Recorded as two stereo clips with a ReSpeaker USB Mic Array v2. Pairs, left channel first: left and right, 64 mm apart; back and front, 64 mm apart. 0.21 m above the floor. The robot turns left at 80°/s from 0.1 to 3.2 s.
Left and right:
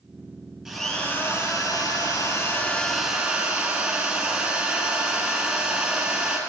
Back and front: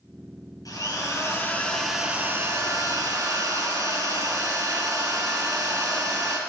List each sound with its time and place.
0.7 s a drill: straight behind, 2.5 m; by 6.4 s 20° right, 2.5 m